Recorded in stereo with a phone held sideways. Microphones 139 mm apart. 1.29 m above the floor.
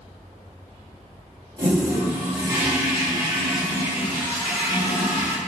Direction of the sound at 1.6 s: 35° right (ahead or behind).